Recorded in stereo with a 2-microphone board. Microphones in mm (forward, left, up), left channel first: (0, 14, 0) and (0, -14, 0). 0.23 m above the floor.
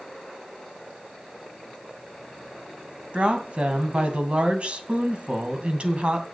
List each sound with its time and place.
3.1 s a woman speaking: 45° right (ahead or behind), 2 m